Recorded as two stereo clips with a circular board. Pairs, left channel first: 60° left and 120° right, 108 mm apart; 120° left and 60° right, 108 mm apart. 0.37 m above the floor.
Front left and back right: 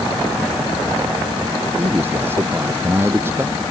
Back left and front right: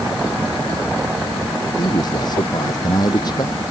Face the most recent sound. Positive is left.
turn(degrees=175)